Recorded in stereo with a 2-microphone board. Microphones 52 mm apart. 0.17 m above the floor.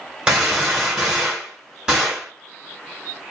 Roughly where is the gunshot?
Centre.